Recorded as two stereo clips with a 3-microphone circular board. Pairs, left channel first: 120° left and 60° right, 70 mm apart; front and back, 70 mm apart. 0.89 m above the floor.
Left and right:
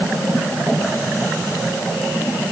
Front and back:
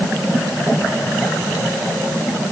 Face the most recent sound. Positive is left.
No sound to turn to.